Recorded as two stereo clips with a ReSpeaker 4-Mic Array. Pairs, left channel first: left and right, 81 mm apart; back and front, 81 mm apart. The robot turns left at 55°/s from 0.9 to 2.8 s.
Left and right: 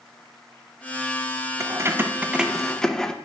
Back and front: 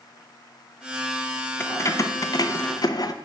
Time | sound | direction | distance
1.6 | keys jangling | 125° right | 0.5 m